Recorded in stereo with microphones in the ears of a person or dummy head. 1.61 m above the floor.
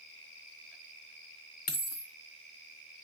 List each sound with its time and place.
1.7 s a dropped coin: 45° left (ahead or behind), 2.0 m